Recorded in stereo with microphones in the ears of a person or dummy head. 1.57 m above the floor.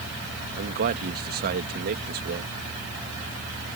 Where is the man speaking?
45° right (ahead or behind).